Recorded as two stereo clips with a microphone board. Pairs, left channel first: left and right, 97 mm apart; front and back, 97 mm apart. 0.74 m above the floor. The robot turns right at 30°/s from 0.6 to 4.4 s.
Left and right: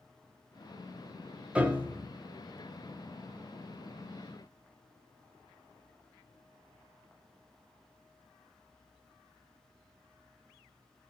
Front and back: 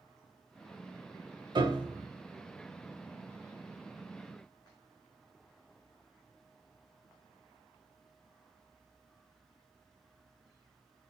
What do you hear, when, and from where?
1.6 s a piano: 165° right, 0.7 m; by 2.1 s 150° right, 0.7 m